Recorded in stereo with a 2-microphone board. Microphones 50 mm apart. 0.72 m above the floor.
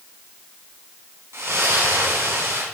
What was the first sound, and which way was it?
A splash, 65° right (ahead or behind).